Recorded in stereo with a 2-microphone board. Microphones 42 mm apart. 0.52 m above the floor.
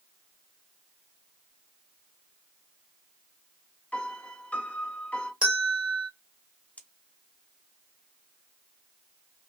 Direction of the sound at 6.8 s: 30° left (ahead or behind).